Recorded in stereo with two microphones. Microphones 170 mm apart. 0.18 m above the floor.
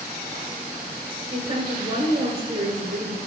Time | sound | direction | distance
1.3 | a woman speaking | 35° right (ahead or behind) | 2.0 m